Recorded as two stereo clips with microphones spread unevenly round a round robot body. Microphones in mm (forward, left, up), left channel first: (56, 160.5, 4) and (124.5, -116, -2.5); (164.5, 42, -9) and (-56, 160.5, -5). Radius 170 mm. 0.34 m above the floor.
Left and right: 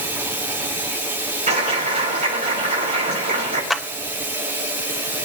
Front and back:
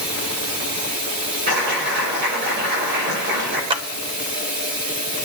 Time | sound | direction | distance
0.0 | running water | 160° right | 6.5 m
1.5 | a clap | 145° right | 7.5 m
3.7 | a clap | 165° right | 0.7 m